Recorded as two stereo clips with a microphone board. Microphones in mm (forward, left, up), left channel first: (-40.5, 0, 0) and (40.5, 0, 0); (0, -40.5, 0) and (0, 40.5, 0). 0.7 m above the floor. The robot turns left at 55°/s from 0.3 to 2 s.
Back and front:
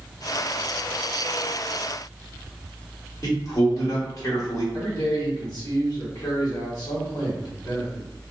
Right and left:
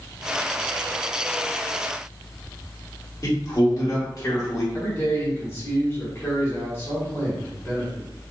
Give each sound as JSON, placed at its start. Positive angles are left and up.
{"t": 3.2, "sound": "a man speaking", "azimuth_deg": -135, "distance_m": 1.3}
{"t": 4.7, "sound": "a man speaking", "azimuth_deg": -145, "distance_m": 1.5}